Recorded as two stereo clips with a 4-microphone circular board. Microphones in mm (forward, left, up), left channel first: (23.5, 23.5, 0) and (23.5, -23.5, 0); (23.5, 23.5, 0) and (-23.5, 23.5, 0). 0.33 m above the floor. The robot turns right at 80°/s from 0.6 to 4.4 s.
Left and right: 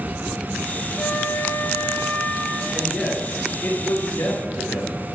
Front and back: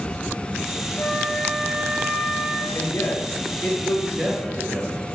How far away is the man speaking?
About 4.5 m.